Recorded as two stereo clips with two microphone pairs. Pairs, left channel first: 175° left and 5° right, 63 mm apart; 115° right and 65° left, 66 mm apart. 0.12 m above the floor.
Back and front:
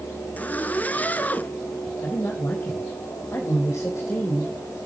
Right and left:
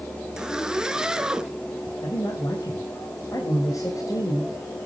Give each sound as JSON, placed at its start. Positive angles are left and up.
{"t": 0.4, "sound": "a zipper", "azimuth_deg": 140, "distance_m": 1.0}
{"t": 2.0, "sound": "a man speaking", "azimuth_deg": -145, "distance_m": 4.5}